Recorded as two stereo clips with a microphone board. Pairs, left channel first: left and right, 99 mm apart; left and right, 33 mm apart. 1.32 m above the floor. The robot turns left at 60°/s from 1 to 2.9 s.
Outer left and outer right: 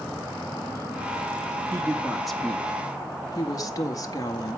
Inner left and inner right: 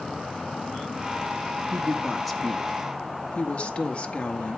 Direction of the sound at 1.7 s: 145° right.